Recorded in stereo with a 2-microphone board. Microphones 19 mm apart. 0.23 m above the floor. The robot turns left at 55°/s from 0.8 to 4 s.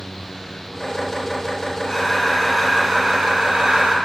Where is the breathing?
30° left, 1.0 m; by 4.0 s 85° right, 1.0 m.